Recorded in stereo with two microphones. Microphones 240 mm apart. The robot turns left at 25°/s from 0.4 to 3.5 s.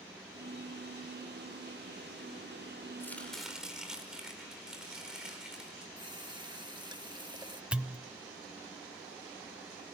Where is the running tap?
20° right (ahead or behind), 1.2 m.